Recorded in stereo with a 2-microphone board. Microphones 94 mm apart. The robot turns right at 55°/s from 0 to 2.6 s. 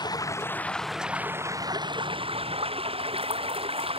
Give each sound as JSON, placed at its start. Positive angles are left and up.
{"t": 0.0, "sound": "running water", "azimuth_deg": 130}